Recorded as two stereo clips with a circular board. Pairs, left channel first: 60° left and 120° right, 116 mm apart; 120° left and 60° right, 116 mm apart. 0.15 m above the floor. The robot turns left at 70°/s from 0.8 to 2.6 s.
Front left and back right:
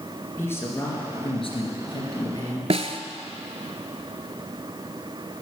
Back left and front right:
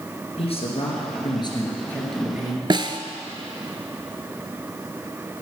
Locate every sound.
0.4 s a man speaking: 125° left, 3 m; by 2.6 s straight ahead, 3 m
2.7 s a snare drum: 105° right, 0.7 m